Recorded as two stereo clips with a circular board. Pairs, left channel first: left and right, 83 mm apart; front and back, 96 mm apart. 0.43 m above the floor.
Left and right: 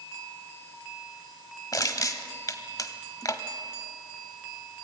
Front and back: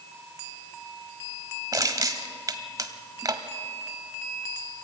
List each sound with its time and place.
1.7 s crushing: 130° left, 1.2 m